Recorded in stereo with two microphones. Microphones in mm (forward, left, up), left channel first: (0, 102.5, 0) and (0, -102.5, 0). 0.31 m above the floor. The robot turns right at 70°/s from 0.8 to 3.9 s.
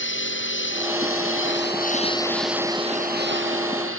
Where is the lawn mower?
65° left (ahead or behind); by 4.0 s 80° right.